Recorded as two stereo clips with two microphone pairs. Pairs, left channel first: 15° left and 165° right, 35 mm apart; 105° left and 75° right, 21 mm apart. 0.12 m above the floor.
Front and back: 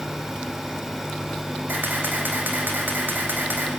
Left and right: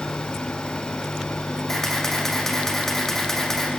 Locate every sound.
1.7 s a camera shutter: 175° left, 5.5 m